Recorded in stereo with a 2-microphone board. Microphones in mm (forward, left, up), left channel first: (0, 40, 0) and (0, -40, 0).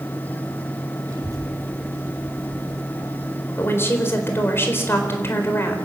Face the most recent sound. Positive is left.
turn(degrees=30)  # may be behind; listen again after turning